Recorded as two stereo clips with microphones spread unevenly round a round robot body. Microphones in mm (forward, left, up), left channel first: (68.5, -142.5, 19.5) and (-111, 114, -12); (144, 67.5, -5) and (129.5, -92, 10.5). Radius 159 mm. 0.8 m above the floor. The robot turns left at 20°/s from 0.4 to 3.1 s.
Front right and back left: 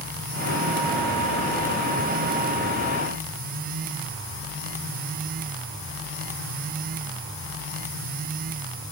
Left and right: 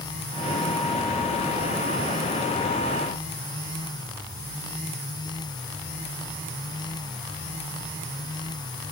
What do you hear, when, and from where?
Only background noise.